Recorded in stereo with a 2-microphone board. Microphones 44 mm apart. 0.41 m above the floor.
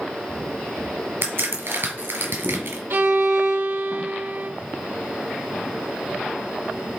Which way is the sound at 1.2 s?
65° right (ahead or behind).